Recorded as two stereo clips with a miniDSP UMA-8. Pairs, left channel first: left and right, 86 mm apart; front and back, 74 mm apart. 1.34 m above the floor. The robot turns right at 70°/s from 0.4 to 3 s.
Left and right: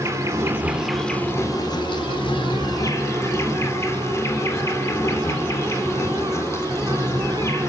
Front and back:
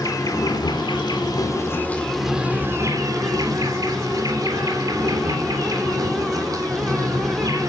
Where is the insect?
35° right, 3 m; by 7.7 s 145° left, 3 m.